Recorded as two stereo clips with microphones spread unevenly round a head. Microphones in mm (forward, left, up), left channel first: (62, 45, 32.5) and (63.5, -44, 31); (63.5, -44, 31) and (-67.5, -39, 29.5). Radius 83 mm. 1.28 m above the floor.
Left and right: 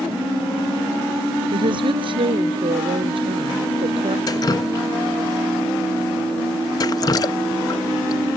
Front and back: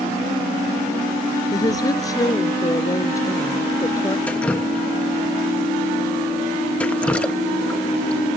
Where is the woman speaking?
65° right; by 4.2 s 70° right.